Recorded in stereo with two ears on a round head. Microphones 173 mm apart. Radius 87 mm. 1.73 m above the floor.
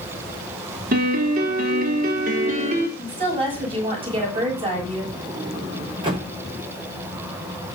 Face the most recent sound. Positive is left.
turn(degrees=-25)  # may be behind; listen again after turning